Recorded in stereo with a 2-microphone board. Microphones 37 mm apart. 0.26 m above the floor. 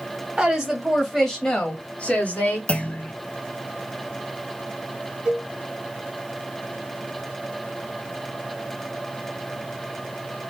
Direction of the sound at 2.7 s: 35° left (ahead or behind).